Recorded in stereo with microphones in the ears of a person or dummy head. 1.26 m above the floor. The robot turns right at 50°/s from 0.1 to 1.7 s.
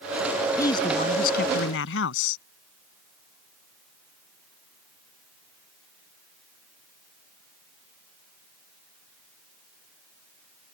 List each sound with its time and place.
0.6 s a man speaking: 20° left; by 2.4 s 75° left